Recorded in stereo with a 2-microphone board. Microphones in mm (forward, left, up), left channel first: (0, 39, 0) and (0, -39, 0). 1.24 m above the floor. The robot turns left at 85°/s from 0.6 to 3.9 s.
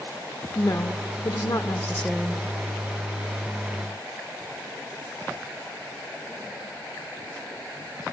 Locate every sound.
0.6 s a woman speaking: 135° left, 1.0 m; by 2.4 s 20° right, 1.0 m